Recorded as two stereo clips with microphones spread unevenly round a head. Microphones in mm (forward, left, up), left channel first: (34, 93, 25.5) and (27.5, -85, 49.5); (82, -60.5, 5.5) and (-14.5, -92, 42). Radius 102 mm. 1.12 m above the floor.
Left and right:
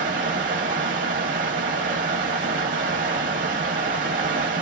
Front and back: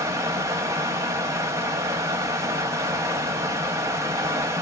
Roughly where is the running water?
Behind right.